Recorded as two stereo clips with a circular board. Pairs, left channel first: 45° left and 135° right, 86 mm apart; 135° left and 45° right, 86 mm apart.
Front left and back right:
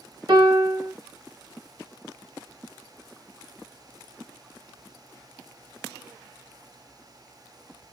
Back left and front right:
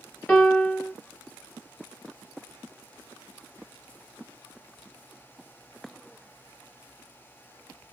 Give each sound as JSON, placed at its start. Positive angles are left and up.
{"t": 0.3, "sound": "a piano", "azimuth_deg": -150, "distance_m": 1.2}